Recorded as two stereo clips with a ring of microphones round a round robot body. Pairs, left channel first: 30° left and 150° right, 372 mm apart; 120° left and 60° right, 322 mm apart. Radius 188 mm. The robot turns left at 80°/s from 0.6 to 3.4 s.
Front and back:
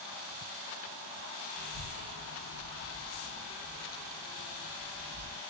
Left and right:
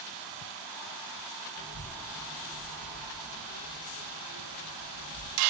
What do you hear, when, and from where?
1.6 s a child speaking: 85° left, 0.8 m; by 5.4 s 60° right, 0.8 m